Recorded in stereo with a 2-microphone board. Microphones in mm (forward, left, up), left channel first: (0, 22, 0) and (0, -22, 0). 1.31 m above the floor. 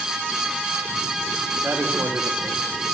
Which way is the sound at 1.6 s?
75° right (ahead or behind).